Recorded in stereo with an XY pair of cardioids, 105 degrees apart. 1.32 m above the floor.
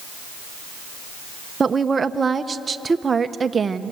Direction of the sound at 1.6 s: 30° right.